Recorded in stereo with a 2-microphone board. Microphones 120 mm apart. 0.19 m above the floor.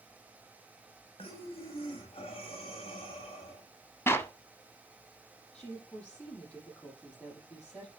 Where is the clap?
20° left (ahead or behind), 0.8 m.